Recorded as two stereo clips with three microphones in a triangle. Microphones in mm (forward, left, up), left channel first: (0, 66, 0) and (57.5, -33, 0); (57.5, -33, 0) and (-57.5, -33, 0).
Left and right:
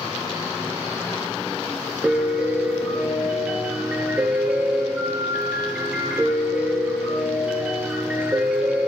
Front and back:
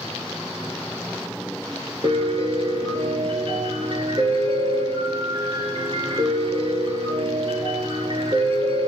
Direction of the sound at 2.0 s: 140° right.